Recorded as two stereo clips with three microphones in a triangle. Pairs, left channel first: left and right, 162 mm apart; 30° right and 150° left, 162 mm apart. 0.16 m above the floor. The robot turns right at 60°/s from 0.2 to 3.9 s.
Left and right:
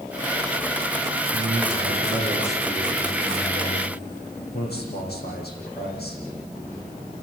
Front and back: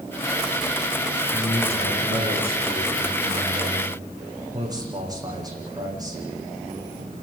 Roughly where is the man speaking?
Right.